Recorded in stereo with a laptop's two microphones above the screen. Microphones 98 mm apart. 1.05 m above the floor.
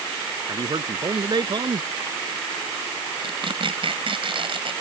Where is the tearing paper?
60° right (ahead or behind).